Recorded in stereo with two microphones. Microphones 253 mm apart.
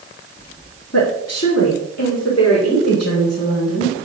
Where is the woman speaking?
65° left (ahead or behind), 2 m; by 4.0 s 75° left (ahead or behind), 6 m.